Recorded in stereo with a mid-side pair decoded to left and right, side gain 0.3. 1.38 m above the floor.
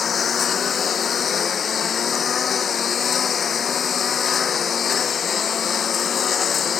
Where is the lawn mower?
65° left.